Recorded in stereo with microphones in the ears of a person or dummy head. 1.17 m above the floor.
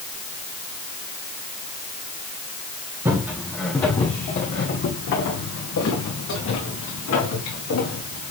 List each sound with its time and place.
3.0 s footsteps: 15° right (ahead or behind), 2 m; by 8.3 s 75° left (ahead or behind), 6 m